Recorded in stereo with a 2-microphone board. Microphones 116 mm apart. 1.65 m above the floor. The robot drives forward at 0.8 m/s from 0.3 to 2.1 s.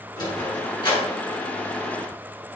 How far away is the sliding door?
About 7 m.